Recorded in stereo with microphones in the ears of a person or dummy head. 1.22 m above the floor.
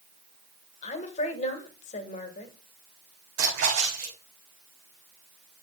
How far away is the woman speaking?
About 1.7 m.